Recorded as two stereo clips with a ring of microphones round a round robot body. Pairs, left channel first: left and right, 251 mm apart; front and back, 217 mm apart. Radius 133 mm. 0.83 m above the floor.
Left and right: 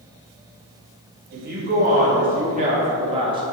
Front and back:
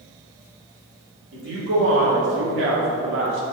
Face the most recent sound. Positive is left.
turn(degrees=-160)